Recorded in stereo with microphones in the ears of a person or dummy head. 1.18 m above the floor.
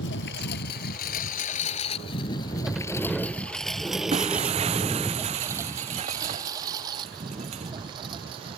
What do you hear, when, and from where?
0.0 s a lawn mower: 70° left (ahead or behind); by 8.6 s 30° right (ahead or behind)
2.7 s a sliding door: centre (ahead or behind)
4.1 s breaking glass: 35° right (ahead or behind)